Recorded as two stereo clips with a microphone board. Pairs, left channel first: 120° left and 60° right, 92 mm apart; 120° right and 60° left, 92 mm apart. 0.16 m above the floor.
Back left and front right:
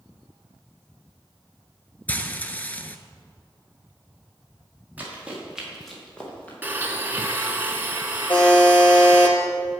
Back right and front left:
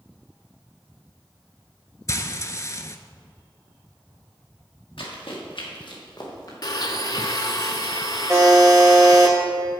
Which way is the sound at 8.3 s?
145° left.